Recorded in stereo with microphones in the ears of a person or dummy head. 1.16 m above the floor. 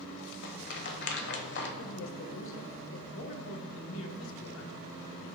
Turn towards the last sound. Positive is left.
turn(degrees=75)  # may be behind; listen again after turning